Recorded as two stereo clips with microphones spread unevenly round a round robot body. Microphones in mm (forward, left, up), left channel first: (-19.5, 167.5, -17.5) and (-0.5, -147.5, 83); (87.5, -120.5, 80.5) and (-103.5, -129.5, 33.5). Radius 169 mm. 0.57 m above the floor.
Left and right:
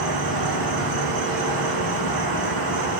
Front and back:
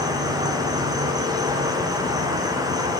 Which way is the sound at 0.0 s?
110° right.